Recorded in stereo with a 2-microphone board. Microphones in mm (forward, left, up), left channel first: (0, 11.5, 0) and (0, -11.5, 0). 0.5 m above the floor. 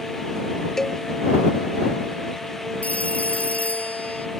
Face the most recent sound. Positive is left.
turn(degrees=85)